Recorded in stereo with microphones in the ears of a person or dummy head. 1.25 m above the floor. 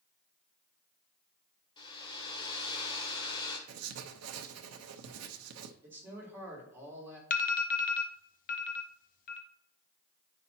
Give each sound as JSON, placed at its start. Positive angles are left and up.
{"t": 1.8, "sound": "a hair dryer", "side_deg": 25, "distance_m": 1.7}
{"t": 3.7, "sound": "writing", "side_deg": -90, "distance_m": 0.8}
{"t": 5.8, "sound": "a man speaking", "side_deg": -15, "distance_m": 3.5}
{"t": 7.3, "sound": "an alarm", "side_deg": 40, "distance_m": 0.8}